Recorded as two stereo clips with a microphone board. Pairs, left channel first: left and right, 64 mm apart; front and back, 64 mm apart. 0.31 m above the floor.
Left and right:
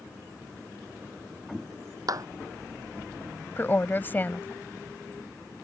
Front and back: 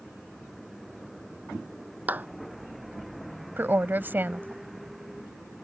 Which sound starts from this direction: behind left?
A woman speaking, at 3.6 s.